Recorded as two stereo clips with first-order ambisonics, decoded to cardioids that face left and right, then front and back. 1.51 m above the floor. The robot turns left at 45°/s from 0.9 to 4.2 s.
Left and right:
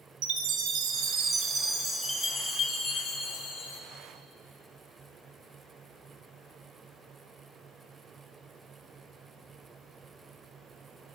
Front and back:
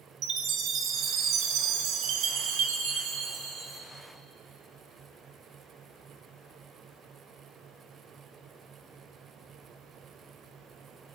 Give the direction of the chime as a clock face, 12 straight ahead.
4 o'clock.